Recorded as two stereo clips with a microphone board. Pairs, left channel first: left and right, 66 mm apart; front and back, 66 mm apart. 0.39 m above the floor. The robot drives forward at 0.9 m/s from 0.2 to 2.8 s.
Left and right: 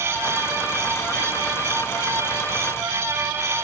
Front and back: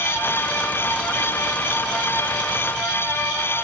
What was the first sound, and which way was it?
Only background noise.